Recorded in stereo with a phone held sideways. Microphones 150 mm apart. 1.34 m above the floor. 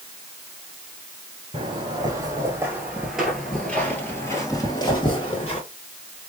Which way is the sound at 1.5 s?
30° right (ahead or behind).